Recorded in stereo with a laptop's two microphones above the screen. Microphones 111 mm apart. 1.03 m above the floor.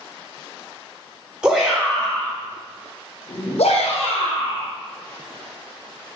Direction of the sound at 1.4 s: 10° right (ahead or behind).